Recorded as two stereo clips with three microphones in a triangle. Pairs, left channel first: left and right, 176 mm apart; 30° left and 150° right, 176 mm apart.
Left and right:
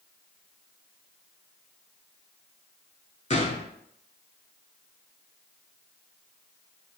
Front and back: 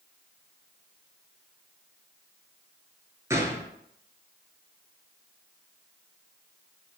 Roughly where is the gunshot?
Behind left.